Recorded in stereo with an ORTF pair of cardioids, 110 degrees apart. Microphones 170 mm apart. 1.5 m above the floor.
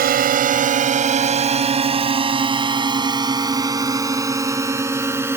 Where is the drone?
60° right; by 5.4 s 15° right.